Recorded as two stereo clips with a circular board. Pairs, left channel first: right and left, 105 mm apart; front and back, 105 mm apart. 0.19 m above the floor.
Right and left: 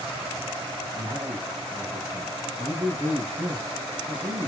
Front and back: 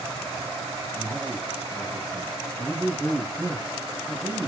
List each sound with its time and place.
0.9 s a man speaking: 95° left, 6.5 m